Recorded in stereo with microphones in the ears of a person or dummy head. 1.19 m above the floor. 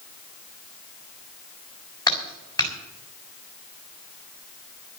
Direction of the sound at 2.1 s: 20° left (ahead or behind).